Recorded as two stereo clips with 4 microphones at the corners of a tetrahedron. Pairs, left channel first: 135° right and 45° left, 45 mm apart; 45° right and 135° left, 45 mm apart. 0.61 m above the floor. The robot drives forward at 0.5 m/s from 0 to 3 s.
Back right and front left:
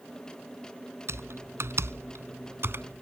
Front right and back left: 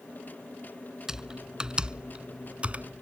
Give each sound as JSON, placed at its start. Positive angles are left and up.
{"t": 1.1, "sound": "typing on a keyboard", "azimuth_deg": 60}